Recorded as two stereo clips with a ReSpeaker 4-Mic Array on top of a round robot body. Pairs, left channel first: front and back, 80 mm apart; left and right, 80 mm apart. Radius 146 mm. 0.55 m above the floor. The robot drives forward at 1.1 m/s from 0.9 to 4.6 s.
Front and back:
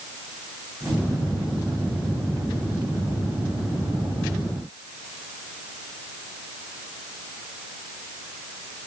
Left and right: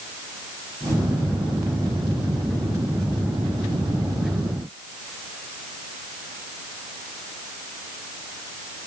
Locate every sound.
Only background noise.